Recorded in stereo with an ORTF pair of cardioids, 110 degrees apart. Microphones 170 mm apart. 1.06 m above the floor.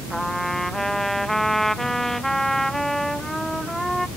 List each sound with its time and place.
0.1 s a trumpet: straight ahead